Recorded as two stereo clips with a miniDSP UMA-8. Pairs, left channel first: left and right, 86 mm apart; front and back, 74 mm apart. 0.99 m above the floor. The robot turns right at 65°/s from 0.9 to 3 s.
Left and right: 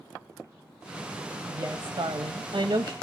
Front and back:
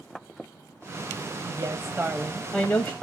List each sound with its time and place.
1.4 s a woman speaking: 150° right, 0.8 m; by 2.9 s 55° right, 0.8 m